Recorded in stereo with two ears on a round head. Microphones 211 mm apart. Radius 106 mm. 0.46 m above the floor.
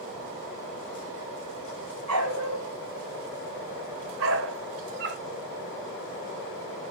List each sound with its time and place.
2.1 s a dog barking: 80° right, 3.5 m; by 5.2 s 45° right (ahead or behind), 0.7 m